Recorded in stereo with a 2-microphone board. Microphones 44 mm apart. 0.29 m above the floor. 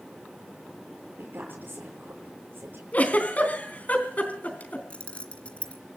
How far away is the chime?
I don't hear a chime.